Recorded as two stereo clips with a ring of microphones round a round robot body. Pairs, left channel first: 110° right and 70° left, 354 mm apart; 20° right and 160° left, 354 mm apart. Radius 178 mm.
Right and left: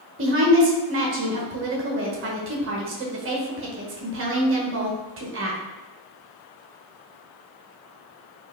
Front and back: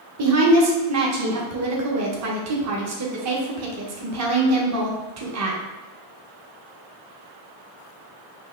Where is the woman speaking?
120° left, 0.9 m.